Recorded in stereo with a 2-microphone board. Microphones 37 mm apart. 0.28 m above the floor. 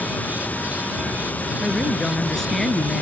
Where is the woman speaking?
15° left (ahead or behind).